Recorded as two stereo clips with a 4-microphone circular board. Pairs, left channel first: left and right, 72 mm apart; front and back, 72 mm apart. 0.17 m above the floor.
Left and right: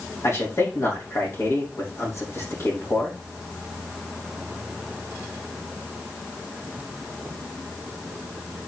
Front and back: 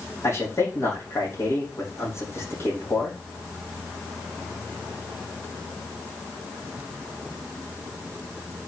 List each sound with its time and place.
0.2 s a man speaking: 45° left, 6 m